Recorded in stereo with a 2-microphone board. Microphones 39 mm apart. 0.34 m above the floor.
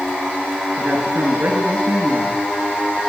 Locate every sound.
0.8 s a woman speaking: 65° right (ahead or behind), 5.5 m